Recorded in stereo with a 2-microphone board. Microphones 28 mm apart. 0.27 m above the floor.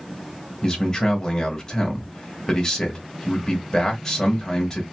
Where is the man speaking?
20° left (ahead or behind), 0.9 m.